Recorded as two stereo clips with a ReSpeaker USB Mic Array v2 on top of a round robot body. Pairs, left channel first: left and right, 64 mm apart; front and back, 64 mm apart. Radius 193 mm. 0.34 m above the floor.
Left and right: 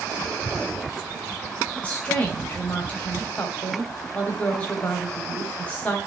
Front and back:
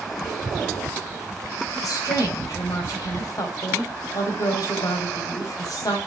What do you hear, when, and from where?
1.8 s a woman speaking: 20° left, 3 m